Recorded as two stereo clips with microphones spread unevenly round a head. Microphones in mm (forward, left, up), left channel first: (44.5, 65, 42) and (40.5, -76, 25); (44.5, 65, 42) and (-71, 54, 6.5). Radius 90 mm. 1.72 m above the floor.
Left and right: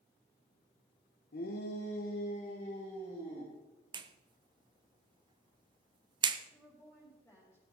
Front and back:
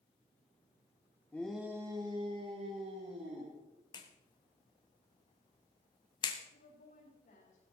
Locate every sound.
1.3 s a shout: 75° left, 1.4 m; by 3.5 s 160° left, 3.5 m
3.9 s a clap: 35° right, 0.8 m
6.5 s a woman speaking: 10° left, 4.5 m